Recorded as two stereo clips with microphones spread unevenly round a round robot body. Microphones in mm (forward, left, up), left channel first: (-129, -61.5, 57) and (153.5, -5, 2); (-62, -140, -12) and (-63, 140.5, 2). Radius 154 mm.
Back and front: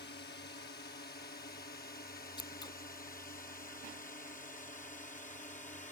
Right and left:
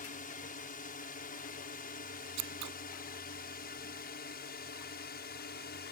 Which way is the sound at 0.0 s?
125° right.